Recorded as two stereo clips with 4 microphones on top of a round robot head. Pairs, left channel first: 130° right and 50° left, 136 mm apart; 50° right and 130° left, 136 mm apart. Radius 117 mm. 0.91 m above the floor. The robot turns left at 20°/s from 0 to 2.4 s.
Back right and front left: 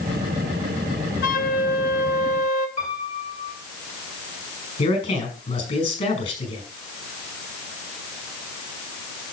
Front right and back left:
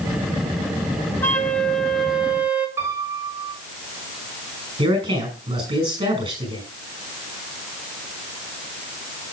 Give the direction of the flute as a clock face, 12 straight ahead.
4 o'clock.